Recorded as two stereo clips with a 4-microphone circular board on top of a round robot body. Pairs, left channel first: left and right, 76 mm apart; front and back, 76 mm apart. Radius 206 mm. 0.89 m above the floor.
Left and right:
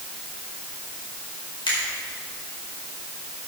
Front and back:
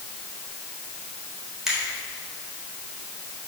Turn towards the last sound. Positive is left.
turn(degrees=95)